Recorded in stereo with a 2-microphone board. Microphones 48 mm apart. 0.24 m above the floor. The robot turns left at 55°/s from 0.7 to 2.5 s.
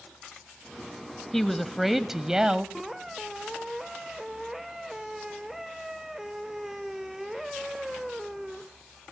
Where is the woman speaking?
5° left (ahead or behind), 1.0 m; by 2.6 s 20° right (ahead or behind), 1.0 m.